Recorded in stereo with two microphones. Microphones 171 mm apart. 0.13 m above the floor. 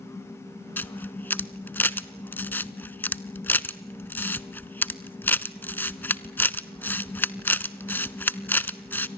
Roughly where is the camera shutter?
Centre.